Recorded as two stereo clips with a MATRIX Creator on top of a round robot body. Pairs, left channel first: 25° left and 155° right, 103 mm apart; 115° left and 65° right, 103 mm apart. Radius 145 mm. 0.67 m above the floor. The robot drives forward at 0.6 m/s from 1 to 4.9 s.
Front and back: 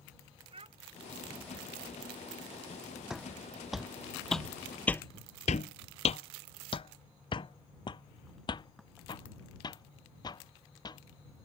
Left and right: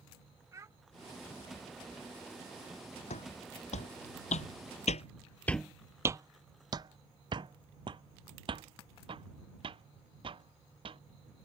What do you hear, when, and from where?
0.5 s a child speaking: 130° right
3.1 s footsteps: 115° left; by 11.0 s 30° right